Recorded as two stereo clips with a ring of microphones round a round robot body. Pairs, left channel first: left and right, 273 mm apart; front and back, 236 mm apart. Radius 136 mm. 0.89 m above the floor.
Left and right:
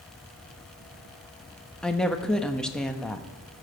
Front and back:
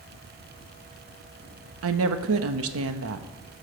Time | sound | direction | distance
1.8 | a woman speaking | 175° left | 1.1 m